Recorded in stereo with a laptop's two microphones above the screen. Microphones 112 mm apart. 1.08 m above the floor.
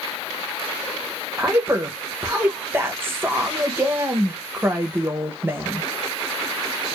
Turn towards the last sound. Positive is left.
turn(degrees=-20)  # may be behind; listen again after turning